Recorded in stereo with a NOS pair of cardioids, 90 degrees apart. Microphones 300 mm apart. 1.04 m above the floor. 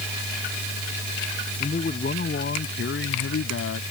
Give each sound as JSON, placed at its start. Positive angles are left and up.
{"t": 1.6, "sound": "a man speaking", "azimuth_deg": 25}